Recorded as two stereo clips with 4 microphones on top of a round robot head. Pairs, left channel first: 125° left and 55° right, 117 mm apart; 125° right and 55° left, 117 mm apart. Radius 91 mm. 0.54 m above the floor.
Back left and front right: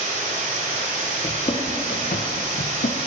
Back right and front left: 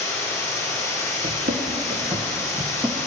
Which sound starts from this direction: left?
Running footsteps, at 1.2 s.